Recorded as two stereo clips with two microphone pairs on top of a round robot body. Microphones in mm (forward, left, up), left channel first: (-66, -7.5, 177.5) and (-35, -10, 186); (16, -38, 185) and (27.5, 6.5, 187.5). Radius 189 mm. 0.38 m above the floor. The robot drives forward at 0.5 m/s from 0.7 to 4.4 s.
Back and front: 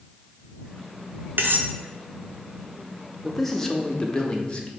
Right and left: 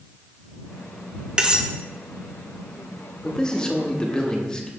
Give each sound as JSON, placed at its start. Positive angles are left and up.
{"t": 1.4, "sound": "cutlery clinking", "azimuth_deg": 5, "distance_m": 0.9}
{"t": 3.2, "sound": "a man speaking", "azimuth_deg": -145, "distance_m": 1.1}